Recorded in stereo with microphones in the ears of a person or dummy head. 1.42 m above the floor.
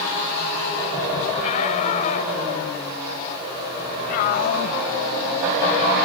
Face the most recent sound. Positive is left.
turn(degrees=60)  # may be behind; listen again after turning